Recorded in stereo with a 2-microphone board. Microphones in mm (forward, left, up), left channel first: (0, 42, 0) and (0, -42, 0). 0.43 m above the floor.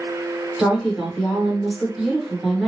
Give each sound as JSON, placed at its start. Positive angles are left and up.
{"t": 0.6, "sound": "a woman speaking", "side_deg": 0, "distance_m": 1.0}